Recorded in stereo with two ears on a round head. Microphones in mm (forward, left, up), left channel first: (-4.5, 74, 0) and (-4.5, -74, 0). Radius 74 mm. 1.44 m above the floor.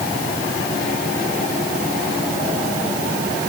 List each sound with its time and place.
Only background noise.